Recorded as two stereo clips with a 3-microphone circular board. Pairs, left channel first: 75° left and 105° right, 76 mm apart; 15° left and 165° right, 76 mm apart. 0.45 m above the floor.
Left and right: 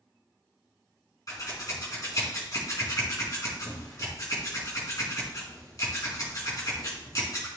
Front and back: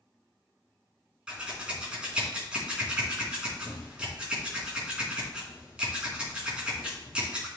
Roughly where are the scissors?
Behind left.